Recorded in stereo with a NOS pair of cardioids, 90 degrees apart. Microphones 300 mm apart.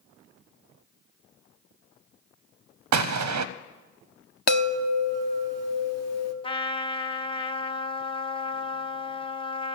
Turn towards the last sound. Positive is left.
turn(degrees=15)